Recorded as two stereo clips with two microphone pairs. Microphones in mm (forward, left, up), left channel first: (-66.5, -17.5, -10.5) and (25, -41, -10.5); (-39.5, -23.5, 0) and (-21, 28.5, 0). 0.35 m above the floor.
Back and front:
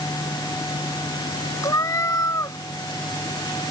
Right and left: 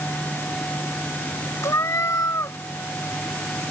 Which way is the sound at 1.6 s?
140° right.